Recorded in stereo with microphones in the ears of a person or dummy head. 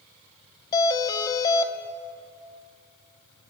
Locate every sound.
0.7 s a doorbell: 20° left (ahead or behind), 2.5 m